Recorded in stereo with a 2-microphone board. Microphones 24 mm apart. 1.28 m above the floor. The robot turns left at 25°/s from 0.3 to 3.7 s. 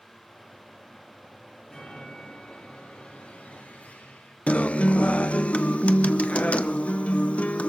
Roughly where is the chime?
Behind.